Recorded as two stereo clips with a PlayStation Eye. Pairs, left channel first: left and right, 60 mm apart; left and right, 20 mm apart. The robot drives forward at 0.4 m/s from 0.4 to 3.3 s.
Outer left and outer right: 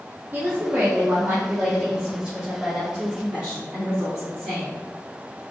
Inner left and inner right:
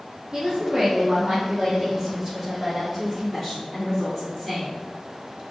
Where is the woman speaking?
35° right (ahead or behind), 0.9 m; by 4.8 s 15° right (ahead or behind), 1.9 m.